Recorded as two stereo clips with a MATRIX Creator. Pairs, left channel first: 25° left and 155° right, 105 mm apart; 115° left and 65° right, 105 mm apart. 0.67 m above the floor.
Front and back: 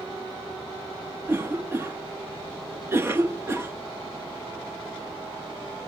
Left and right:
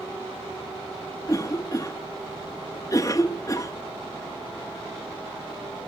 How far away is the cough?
About 0.6 m.